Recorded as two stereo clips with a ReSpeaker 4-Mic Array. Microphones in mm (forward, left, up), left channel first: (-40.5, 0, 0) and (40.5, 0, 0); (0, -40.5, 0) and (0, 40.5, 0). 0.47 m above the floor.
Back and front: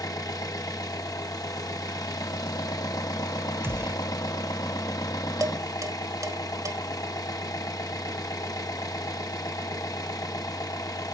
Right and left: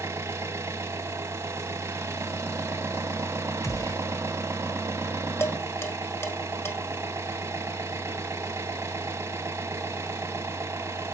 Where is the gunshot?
50° right, 1.5 m.